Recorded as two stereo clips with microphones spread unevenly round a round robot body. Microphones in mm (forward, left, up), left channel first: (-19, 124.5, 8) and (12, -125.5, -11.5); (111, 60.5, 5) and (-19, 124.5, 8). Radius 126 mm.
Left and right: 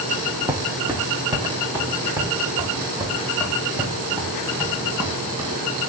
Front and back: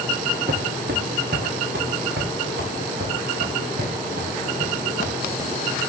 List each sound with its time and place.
0.5 s footsteps: 165° right, 1.5 m; by 5.8 s 160° right, 4.5 m